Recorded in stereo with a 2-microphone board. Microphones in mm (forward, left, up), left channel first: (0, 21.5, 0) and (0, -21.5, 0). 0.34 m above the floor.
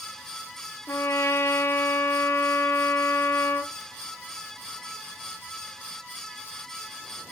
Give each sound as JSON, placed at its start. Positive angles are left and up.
{"t": 0.9, "sound": "a trumpet", "side_deg": 65, "distance_m": 1.4}